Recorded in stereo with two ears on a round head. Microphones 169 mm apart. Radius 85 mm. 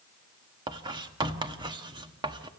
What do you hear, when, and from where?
0.7 s writing: 25° right (ahead or behind), 1.2 m